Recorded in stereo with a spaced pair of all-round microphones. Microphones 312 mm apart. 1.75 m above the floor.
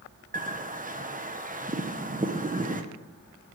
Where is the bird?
25° right (ahead or behind), 0.7 m.